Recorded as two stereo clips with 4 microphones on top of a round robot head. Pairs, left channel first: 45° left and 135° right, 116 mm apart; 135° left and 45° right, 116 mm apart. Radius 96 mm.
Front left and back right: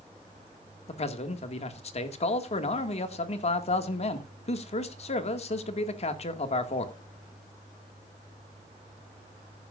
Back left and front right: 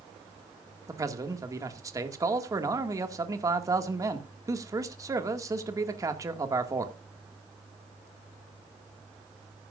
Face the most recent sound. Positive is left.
turn(degrees=15)